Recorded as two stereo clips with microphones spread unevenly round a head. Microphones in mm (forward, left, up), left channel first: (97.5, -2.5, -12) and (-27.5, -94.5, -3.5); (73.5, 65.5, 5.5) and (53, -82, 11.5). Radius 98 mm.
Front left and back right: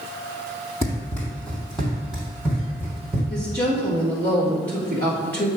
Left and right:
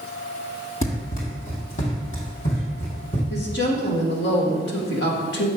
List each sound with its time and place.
0.8 s running footsteps: 110° left, 1.9 m; by 3.2 s 140° left, 3 m
3.3 s a woman speaking: 120° left, 1.7 m